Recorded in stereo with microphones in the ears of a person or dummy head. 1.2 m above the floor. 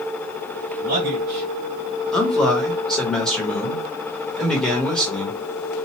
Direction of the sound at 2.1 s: 10° left (ahead or behind).